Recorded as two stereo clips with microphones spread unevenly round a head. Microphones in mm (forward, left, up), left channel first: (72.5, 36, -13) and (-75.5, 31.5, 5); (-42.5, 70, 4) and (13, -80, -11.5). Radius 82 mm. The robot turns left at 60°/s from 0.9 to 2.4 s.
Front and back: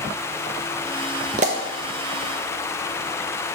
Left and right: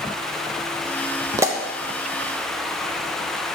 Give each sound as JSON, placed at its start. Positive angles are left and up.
{"t": 1.4, "sound": "a pop", "azimuth_deg": -130, "distance_m": 0.6}